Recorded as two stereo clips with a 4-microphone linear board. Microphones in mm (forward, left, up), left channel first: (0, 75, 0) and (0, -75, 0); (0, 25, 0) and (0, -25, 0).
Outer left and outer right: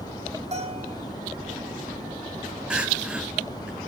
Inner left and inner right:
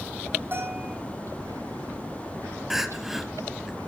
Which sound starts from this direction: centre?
Crying, at 2.7 s.